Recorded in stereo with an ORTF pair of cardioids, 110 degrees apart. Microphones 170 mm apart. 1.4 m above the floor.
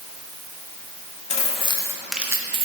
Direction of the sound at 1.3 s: 40° left.